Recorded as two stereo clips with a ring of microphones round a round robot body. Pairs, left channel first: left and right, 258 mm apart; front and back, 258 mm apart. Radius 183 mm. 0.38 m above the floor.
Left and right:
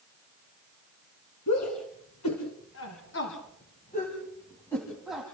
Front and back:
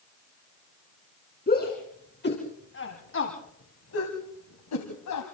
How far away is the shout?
About 4 m.